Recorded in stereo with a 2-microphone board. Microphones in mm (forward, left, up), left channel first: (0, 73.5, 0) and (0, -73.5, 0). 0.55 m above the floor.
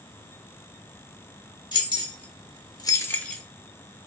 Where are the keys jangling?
30° left (ahead or behind), 1.2 m; by 3.4 s 5° left (ahead or behind), 0.8 m.